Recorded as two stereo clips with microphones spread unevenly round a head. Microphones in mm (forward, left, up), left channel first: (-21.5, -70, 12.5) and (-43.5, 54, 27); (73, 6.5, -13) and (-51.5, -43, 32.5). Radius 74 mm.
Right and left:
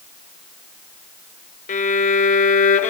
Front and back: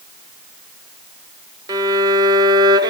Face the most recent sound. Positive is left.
turn(degrees=-90)